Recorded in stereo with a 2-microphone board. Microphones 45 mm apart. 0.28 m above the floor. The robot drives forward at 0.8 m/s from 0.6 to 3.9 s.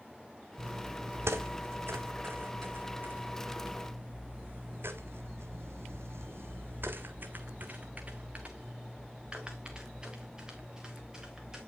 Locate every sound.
0.6 s footsteps: 80° right, 1.0 m; by 11.6 s 10° right (ahead or behind), 3 m